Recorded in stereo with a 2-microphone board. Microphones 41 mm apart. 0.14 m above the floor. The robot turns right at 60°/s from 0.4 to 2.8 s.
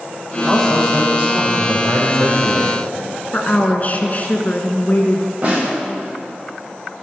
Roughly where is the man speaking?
Behind left.